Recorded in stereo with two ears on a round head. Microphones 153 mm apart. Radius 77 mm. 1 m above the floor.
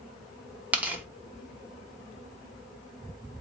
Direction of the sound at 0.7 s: 10° right (ahead or behind).